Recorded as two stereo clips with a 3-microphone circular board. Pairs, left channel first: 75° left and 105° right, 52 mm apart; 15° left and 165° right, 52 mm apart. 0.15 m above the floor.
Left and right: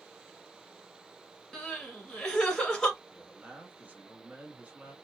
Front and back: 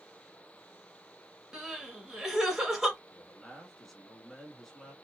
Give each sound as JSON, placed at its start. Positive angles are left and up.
{"t": 1.5, "sound": "crying", "azimuth_deg": 135, "distance_m": 1.2}
{"t": 3.1, "sound": "a man speaking", "azimuth_deg": -70, "distance_m": 1.2}